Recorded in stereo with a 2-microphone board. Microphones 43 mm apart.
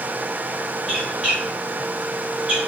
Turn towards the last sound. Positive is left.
turn(degrees=-20)  # may be behind; listen again after turning